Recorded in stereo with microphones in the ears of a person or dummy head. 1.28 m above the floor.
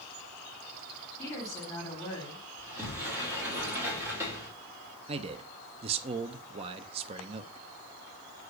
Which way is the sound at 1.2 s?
10° left (ahead or behind).